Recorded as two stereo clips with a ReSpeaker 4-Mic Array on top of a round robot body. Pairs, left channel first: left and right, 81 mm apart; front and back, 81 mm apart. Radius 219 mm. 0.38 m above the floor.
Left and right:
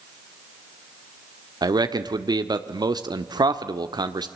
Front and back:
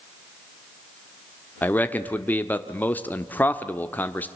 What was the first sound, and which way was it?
A man speaking, 65° right.